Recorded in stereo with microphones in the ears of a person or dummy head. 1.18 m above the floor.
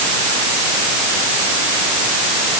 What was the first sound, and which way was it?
Only background noise.